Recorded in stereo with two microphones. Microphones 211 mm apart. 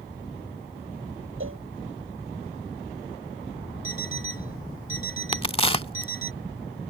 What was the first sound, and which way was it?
A cowbell, 75° right (ahead or behind).